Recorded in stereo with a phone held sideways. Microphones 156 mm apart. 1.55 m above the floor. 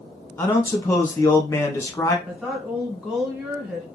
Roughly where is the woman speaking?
Centre.